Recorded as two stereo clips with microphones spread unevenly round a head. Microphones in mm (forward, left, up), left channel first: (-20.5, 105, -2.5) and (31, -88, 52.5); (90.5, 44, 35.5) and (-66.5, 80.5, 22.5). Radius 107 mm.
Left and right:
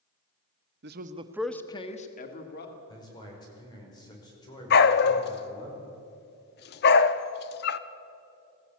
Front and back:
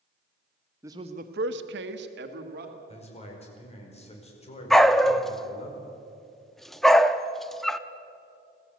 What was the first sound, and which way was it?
A man speaking, 115° right.